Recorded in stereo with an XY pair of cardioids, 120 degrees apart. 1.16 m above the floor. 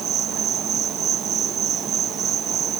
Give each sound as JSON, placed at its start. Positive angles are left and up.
{"t": 0.0, "sound": "an insect", "azimuth_deg": -55}